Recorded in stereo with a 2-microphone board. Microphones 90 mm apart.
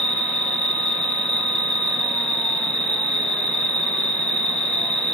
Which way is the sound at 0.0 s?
55° right (ahead or behind).